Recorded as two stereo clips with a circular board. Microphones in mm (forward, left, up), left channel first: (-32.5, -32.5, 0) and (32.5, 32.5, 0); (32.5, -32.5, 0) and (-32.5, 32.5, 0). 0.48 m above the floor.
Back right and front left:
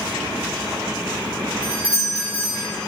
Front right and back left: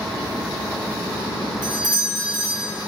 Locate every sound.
1.6 s a doorbell: 125° left, 3 m